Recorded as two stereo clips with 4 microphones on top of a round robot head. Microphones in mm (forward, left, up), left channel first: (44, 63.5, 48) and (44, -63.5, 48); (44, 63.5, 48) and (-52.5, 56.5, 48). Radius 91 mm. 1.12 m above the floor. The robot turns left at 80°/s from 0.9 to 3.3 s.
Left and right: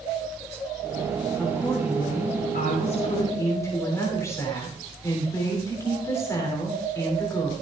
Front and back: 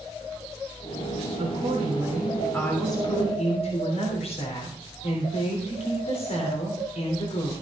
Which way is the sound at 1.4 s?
175° left.